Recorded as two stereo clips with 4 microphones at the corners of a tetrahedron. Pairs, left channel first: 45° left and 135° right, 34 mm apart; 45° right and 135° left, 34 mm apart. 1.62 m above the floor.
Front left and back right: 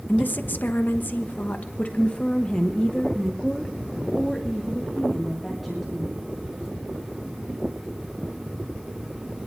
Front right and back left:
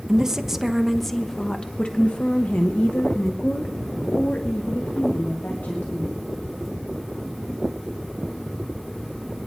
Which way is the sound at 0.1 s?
65° left.